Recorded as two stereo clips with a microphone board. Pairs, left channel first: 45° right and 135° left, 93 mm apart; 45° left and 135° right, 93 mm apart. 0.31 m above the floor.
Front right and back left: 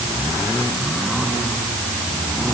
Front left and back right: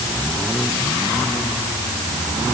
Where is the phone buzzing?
No phone buzzing in this recording.